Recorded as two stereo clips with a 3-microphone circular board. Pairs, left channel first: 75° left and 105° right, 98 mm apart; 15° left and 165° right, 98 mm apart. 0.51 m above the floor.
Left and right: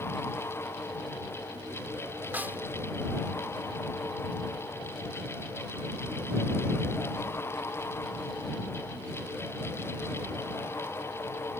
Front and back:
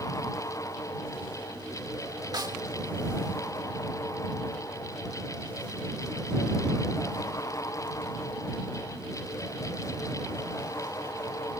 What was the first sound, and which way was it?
A snare drum, 165° right.